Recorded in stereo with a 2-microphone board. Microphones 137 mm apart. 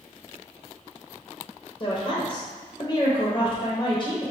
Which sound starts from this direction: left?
A woman speaking, at 1.8 s.